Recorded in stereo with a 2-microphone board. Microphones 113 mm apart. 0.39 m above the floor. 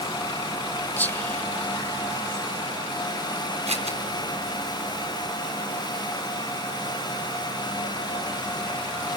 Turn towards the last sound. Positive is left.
turn(degrees=-75)  # may be behind; listen again after turning